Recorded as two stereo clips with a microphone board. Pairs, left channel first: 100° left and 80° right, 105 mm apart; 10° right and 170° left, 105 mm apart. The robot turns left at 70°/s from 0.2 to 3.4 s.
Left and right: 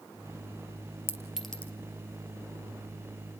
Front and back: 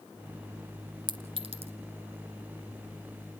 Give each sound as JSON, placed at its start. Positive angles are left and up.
{"t": 1.1, "sound": "a clink", "azimuth_deg": -145, "distance_m": 2.0}